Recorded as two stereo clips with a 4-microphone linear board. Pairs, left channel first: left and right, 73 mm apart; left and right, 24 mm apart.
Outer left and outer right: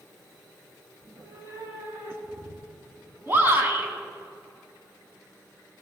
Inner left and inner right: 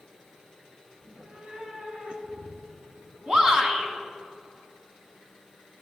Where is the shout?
30° right (ahead or behind), 1.9 m.